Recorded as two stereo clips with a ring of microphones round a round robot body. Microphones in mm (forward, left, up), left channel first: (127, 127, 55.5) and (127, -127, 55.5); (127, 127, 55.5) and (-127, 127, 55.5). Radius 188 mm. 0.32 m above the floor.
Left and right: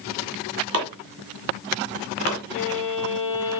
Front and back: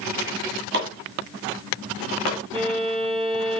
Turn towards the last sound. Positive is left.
turn(degrees=115)